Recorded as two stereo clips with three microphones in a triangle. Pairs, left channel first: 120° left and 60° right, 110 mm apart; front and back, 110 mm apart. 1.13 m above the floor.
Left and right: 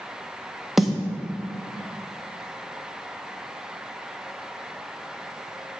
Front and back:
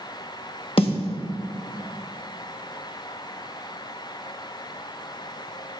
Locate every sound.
0.8 s a snare drum: 25° left, 1.4 m